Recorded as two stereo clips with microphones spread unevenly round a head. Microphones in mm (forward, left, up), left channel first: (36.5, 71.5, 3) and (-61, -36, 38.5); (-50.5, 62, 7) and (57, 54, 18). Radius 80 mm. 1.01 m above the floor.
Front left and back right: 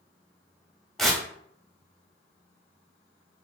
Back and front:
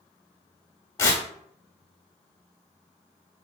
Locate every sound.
1.0 s tearing paper: 175° left, 0.7 m